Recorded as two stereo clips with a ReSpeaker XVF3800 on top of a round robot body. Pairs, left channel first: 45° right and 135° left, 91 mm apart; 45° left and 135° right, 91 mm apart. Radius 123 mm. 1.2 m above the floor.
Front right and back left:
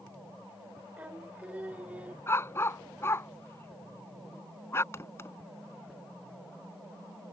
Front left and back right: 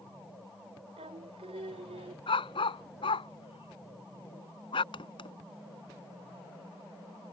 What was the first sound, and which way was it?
Singing, 150° right.